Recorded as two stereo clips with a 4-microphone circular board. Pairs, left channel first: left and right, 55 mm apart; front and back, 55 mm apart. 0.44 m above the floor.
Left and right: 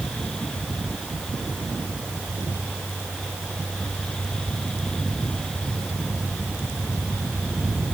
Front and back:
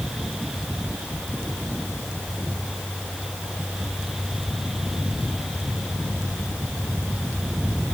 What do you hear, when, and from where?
Only background noise.